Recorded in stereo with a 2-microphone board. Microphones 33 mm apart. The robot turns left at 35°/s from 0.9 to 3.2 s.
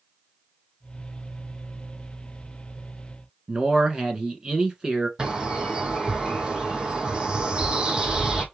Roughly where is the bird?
Right.